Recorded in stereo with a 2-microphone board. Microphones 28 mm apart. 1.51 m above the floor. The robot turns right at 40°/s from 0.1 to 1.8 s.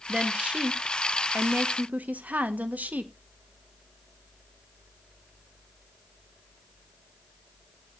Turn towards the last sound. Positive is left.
turn(degrees=-80)